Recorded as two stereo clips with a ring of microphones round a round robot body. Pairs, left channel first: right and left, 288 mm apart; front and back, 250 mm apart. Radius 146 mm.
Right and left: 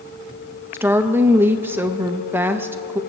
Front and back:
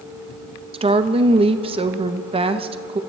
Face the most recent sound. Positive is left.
turn(degrees=160)